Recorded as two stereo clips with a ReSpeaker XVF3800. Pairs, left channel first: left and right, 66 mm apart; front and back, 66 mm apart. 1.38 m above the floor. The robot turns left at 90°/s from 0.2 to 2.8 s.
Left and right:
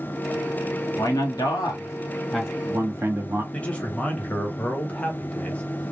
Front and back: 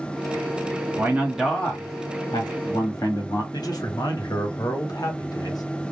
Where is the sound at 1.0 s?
130° left, 1.1 m; by 3.4 s 35° right, 1.1 m.